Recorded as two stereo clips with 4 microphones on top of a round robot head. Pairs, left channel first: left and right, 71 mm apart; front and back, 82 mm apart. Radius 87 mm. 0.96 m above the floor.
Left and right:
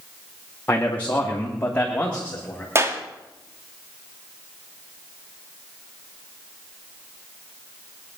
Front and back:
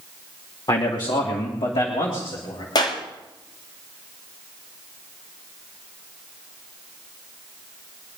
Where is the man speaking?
25° left, 2 m; by 2.6 s 20° left, 3.5 m.